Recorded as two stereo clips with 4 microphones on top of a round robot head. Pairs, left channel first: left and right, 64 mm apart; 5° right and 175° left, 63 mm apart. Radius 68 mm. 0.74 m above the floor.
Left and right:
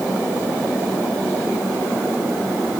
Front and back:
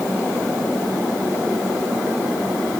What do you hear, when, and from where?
Only background noise.